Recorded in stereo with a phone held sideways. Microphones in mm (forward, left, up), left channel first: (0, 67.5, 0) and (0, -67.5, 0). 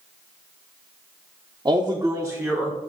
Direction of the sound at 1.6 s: 30° right (ahead or behind).